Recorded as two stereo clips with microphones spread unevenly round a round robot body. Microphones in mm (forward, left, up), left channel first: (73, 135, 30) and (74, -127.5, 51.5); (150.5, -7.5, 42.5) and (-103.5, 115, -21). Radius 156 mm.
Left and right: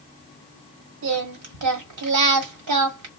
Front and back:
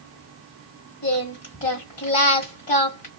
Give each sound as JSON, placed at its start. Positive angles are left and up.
{"t": 1.0, "sound": "singing", "azimuth_deg": -95, "distance_m": 1.4}